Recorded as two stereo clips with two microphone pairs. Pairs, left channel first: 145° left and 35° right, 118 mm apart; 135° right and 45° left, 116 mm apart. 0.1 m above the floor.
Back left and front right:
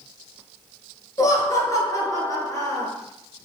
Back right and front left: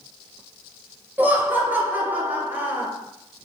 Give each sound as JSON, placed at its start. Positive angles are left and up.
{"t": 1.2, "sound": "laughter", "azimuth_deg": 110, "distance_m": 1.3}